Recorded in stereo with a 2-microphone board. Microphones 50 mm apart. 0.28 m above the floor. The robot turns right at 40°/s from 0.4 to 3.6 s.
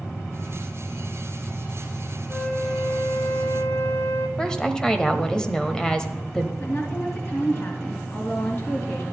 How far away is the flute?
About 1.2 m.